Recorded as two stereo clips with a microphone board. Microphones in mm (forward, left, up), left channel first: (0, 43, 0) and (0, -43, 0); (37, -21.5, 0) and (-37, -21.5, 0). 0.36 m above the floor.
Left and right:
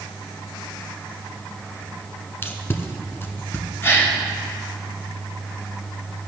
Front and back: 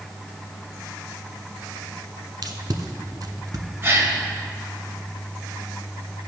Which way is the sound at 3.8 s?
140° left.